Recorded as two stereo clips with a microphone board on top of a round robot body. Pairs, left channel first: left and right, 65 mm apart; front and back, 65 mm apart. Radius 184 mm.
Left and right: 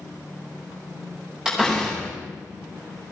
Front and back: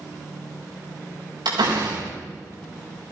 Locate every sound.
1.4 s a door slam: 170° right, 6 m